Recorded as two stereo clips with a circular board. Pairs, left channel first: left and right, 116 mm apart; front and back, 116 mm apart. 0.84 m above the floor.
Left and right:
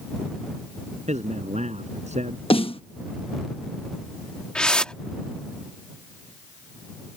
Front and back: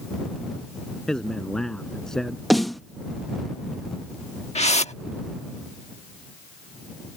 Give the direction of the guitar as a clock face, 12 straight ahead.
No guitar in this recording.